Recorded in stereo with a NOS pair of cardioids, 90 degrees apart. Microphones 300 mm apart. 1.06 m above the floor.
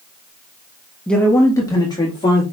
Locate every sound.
1.1 s a man speaking: 5° left, 0.9 m; by 2.4 s 15° left, 2 m